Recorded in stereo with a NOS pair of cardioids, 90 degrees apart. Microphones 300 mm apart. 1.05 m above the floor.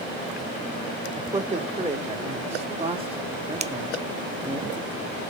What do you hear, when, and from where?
1.1 s a man speaking: 25° right, 4.5 m; by 4.6 s 10° right, 1.7 m
3.6 s a finger snap: 25° right, 0.6 m